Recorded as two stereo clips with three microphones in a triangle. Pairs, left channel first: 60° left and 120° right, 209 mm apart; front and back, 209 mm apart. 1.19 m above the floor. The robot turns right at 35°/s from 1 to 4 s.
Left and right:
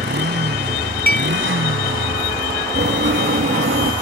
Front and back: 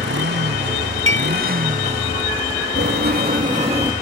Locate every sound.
0.0 s a motorcycle: 155° right; by 4.0 s 50° right
1.1 s dishes clattering: 20° left; by 1.3 s 30° left
2.8 s writing: 155° right; by 3.9 s 115° right